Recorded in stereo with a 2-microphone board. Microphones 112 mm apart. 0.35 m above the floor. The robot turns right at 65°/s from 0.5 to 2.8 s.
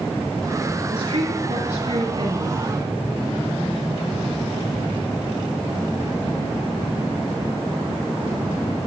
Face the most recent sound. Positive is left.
turn(degrees=-10)